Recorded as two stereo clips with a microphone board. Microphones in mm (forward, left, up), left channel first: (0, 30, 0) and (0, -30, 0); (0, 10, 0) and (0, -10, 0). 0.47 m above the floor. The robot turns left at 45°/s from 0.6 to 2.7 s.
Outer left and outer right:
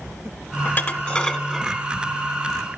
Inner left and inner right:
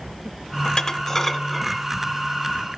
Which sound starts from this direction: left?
Dishes clattering, at 0.7 s.